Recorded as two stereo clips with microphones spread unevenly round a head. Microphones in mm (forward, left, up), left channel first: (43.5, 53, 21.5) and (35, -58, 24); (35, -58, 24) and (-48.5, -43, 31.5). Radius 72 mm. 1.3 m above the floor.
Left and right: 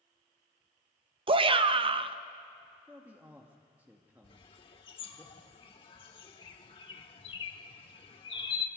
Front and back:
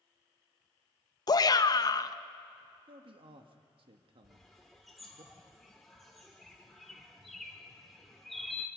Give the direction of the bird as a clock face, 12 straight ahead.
9 o'clock.